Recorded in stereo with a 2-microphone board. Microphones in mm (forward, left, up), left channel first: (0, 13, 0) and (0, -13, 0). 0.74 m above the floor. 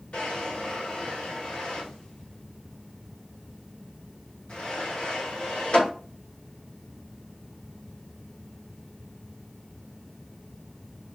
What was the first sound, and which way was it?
A drawer, 50° left (ahead or behind).